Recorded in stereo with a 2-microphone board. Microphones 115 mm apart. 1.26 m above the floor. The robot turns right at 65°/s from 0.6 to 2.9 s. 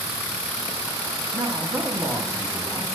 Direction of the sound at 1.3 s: 55° right.